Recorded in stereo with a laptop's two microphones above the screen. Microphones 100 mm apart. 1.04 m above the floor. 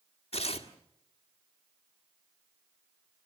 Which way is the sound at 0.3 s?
70° left (ahead or behind).